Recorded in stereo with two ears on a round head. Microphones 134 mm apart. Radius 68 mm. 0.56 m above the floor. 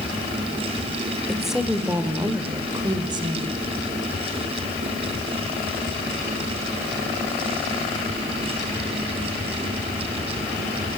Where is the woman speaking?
Centre (ahead or behind), 2 m; by 3.6 s 35° right (ahead or behind), 3 m.